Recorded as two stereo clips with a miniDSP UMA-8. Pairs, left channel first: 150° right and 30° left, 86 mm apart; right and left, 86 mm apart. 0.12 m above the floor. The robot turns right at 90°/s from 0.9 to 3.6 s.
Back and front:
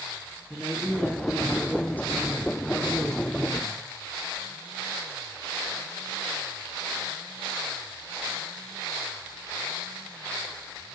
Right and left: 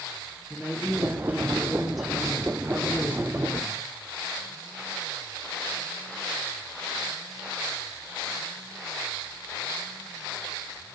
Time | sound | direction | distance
0.5 | a woman speaking | 80° left | 1.1 m